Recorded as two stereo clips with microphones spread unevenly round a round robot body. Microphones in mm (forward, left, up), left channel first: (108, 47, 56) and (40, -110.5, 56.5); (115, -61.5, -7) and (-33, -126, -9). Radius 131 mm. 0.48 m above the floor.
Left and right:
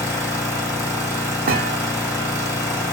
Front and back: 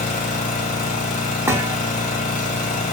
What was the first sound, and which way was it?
An engine running, 5° right.